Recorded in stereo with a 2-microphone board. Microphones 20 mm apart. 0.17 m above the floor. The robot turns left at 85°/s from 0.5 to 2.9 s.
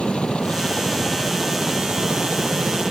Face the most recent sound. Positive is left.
turn(degrees=-140)